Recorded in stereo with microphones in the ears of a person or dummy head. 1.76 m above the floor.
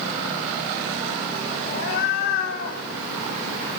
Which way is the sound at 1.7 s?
55° left (ahead or behind).